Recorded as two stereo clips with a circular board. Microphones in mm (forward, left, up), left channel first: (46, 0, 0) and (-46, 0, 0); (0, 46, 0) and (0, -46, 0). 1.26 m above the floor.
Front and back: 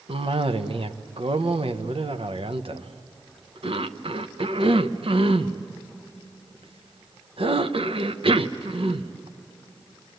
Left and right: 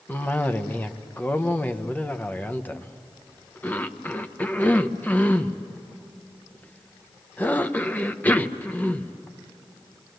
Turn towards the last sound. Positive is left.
turn(degrees=160)